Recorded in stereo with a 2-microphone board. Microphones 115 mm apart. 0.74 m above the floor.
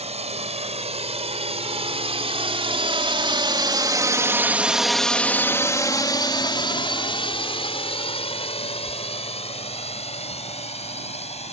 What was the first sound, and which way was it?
A drone, 70° right (ahead or behind).